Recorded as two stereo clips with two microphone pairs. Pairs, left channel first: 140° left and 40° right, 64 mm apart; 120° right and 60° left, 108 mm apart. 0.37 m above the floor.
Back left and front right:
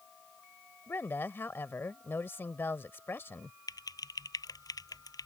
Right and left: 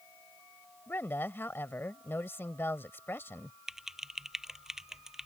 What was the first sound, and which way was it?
A woman speaking, 175° left.